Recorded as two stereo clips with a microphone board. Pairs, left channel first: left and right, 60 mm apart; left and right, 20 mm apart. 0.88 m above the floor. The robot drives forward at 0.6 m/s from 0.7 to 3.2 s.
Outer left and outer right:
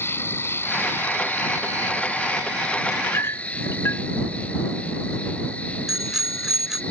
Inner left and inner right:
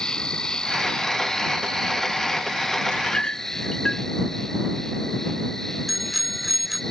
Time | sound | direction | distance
0.0 | an insect | 40° left (ahead or behind) | ?
2.9 | a clink | 50° left (ahead or behind) | ?
5.9 | a bicycle bell | 5° right (ahead or behind) | ?